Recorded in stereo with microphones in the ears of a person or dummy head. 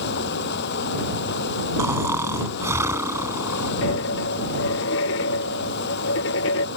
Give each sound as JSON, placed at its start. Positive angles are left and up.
{"t": 0.0, "sound": "running water", "side_deg": 60}
{"t": 1.8, "sound": "snoring", "side_deg": -15}
{"t": 3.8, "sound": "a dropped coin", "side_deg": 75}